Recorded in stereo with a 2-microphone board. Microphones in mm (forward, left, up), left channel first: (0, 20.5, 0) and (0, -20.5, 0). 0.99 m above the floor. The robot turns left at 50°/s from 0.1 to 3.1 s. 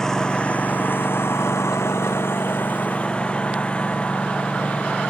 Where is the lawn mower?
10° left (ahead or behind); by 5.1 s 30° left (ahead or behind).